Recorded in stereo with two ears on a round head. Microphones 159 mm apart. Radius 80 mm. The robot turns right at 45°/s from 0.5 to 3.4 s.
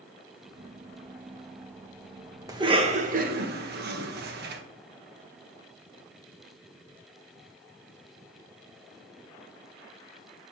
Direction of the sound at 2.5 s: 20° right (ahead or behind).